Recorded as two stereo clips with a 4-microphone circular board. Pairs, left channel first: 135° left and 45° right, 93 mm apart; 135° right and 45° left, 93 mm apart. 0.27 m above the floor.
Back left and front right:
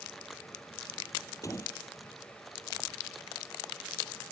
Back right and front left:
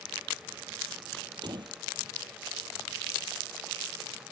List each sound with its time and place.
1.4 s a door slam: 80° left